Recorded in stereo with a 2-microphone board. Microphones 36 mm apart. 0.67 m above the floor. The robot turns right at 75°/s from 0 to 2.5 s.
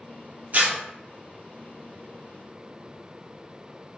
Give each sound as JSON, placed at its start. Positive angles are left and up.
{"t": 0.5, "sound": "tearing paper", "side_deg": -50, "distance_m": 0.8}